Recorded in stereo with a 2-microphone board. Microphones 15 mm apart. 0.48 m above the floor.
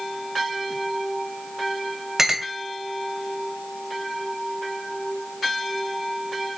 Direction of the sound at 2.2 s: 30° right (ahead or behind).